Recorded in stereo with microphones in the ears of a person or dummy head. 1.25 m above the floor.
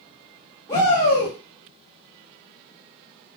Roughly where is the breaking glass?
No breaking glass in this recording.